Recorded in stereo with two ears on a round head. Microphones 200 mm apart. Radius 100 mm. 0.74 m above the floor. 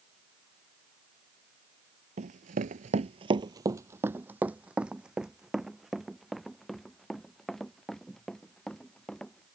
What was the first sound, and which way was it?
Running footsteps, 35° right (ahead or behind).